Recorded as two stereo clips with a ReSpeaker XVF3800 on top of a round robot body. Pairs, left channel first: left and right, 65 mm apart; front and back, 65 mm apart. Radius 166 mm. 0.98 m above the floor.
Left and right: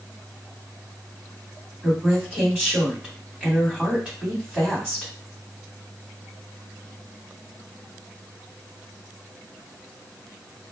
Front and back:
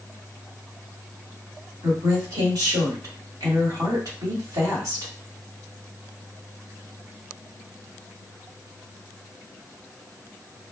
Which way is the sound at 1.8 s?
170° right.